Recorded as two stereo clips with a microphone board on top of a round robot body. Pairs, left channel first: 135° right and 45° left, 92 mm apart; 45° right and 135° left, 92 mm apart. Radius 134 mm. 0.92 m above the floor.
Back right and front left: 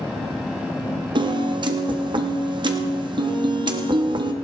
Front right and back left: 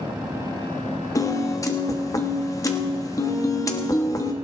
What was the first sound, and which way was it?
A piano, 10° left.